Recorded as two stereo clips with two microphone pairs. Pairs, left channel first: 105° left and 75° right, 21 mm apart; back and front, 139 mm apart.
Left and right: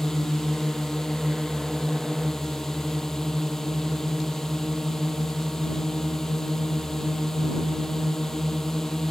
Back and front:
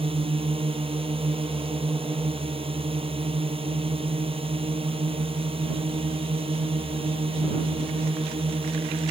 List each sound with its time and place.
0.0 s a drone: 45° left